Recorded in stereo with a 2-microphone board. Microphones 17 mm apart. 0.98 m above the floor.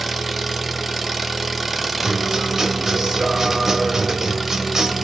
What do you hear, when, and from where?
0.0 s an engine running: 10° right (ahead or behind), 0.7 m
2.0 s a guitar: 35° right (ahead or behind), 1.4 m